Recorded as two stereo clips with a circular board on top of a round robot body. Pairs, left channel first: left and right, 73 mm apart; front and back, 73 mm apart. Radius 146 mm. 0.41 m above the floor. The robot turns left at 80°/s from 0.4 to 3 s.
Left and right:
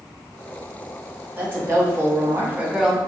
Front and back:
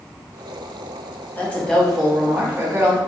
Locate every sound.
1.4 s a woman speaking: 45° right, 1.0 m; by 3.0 s 175° right, 1.0 m